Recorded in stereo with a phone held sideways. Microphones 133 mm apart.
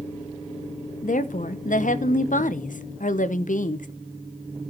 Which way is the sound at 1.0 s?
75° left (ahead or behind).